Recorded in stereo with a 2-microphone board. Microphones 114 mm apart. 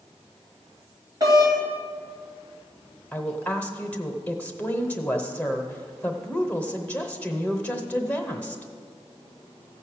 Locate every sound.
1.2 s a doorbell: 35° right (ahead or behind), 3 m
3.1 s a woman speaking: 15° left (ahead or behind), 1.0 m